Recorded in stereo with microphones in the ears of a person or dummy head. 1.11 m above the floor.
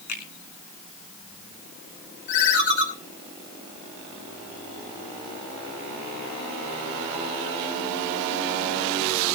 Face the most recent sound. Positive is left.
turn(degrees=65)  # may be behind; listen again after turning